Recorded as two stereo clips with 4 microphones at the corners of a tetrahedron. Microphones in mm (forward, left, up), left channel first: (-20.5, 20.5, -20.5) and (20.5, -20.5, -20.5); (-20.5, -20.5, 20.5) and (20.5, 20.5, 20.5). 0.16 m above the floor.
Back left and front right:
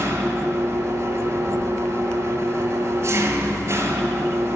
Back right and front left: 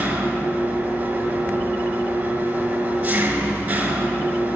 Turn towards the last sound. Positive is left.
turn(degrees=-10)